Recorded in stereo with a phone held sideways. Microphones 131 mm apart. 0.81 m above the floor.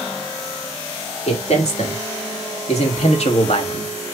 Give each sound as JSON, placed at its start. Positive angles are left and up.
{"t": 1.3, "sound": "a man speaking", "side_deg": 65, "distance_m": 2.5}